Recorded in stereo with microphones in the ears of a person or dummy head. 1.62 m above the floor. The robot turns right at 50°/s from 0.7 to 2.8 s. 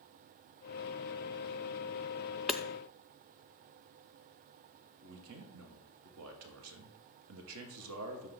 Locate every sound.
2.5 s hammering: centre (ahead or behind), 0.5 m; by 2.6 s 10° left (ahead or behind), 0.5 m
5.0 s a man speaking: 70° right (ahead or behind), 1.5 m